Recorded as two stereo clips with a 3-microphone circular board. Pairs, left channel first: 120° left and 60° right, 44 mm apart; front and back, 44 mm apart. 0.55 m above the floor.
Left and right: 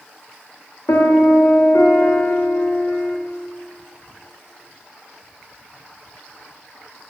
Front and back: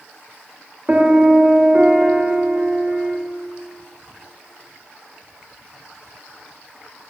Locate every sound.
0.9 s a piano: 115° left, 0.6 m